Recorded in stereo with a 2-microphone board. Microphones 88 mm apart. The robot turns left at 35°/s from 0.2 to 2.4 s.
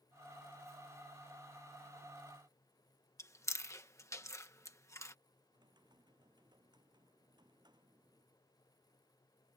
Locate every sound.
3.2 s chewing: 35° left (ahead or behind)
5.5 s typing on a keyboard: 50° right (ahead or behind)